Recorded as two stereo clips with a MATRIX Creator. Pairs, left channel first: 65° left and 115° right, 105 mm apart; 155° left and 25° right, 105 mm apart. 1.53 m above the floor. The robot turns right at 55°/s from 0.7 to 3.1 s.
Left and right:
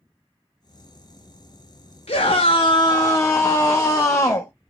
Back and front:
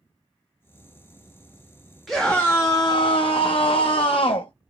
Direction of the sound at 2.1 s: 70° left.